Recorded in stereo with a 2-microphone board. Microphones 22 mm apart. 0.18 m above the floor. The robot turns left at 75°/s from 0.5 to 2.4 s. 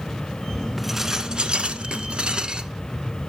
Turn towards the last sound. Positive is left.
turn(degrees=-130)